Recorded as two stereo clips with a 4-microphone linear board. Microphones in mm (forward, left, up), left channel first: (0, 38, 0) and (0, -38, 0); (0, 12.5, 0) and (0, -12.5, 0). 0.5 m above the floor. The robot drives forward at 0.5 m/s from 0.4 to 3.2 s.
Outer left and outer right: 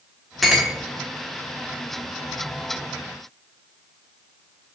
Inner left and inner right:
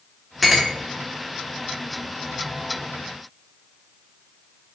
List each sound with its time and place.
0.4 s a clink: centre (ahead or behind), 0.6 m